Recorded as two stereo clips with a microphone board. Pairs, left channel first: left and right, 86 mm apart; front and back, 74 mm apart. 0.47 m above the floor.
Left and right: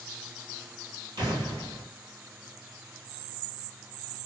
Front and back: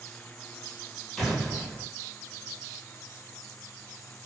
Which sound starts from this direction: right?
An explosion, at 1.2 s.